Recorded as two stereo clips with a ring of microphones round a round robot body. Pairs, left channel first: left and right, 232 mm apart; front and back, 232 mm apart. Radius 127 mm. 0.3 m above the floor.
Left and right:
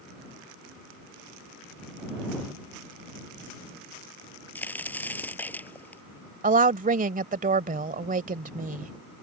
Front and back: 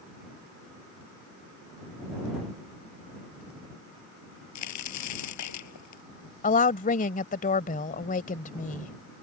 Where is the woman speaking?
45° right.